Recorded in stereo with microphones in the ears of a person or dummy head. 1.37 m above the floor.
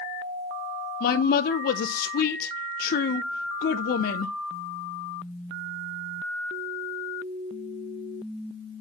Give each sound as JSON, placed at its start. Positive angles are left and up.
{"t": 1.0, "sound": "a woman speaking", "side_deg": 50, "distance_m": 0.6}